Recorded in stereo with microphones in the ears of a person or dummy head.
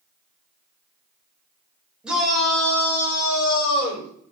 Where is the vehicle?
I don't hear a vehicle.